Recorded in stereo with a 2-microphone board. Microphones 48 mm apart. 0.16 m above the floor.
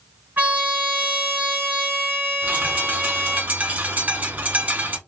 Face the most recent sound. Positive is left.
turn(degrees=-35)  # may be behind; listen again after turning